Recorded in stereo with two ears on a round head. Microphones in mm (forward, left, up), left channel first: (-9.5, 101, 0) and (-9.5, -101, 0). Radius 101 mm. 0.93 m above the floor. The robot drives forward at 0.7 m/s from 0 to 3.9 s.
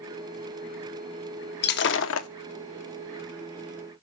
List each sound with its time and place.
1.6 s breaking glass: 45° left (ahead or behind), 1.0 m; by 2.3 s 70° left (ahead or behind), 0.8 m